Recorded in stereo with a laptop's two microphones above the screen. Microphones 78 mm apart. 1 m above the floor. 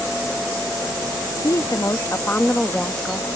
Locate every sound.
1.4 s a woman speaking: 50° left (ahead or behind); by 3.3 s 5° right (ahead or behind)